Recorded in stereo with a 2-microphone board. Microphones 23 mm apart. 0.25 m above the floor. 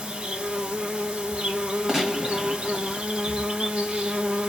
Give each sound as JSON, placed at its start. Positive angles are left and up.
{"t": 0.0, "sound": "an insect", "side_deg": -50, "distance_m": 1.1}
{"t": 1.9, "sound": "a gunshot", "side_deg": -20, "distance_m": 1.3}